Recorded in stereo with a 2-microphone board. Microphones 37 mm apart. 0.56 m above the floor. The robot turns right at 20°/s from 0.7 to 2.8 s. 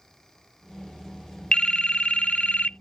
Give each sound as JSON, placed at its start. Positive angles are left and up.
{"t": 1.5, "sound": "a phone ringing", "side_deg": 30}